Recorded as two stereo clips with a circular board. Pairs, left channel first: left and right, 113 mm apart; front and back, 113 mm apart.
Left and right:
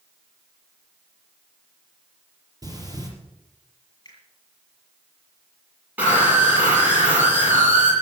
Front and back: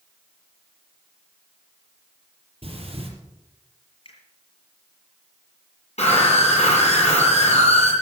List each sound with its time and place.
2.6 s breathing: 145° right, 4.5 m
4.0 s a finger snap: 35° left, 6.5 m
6.0 s a scream: 15° right, 8.5 m